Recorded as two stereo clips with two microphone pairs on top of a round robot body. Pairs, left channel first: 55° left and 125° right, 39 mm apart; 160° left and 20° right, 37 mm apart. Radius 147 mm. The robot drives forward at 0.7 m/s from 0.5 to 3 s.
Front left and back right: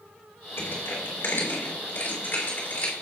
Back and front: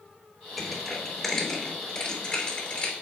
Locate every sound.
0.6 s crushing: 70° left, 3 m; by 2.9 s 100° left, 3 m